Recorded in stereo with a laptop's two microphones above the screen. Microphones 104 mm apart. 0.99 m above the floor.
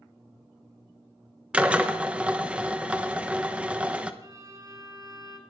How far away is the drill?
About 0.9 m.